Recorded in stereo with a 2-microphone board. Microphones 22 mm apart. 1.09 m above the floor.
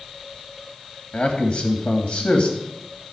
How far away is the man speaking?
About 2.5 m.